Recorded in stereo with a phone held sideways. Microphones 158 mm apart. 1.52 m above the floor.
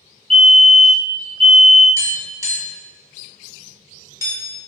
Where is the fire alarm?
5° left (ahead or behind), 1.3 m.